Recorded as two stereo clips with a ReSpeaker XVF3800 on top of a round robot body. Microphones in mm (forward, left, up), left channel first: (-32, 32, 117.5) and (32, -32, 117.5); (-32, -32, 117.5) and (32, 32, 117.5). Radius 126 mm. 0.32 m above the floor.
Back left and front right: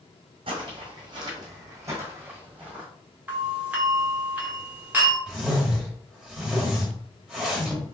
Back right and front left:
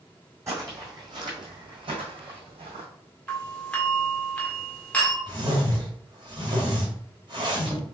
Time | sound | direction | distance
0.5 | footsteps | 15° right | 1.6 m
3.3 | a doorbell | 85° right | 1.7 m
5.3 | a whoosh | 35° left | 2 m